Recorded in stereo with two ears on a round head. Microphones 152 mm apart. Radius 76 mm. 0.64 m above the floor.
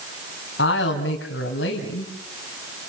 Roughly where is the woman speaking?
Left.